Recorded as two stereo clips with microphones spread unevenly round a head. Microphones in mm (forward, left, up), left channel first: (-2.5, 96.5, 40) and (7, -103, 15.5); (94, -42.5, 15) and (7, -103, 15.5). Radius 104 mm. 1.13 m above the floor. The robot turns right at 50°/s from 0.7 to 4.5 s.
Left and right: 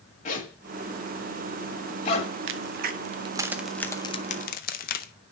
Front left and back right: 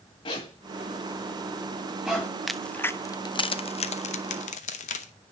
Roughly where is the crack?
Ahead right.